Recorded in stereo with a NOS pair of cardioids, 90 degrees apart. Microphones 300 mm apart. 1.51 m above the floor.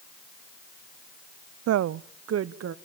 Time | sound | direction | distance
1.7 | a woman speaking | 60° right | 0.6 m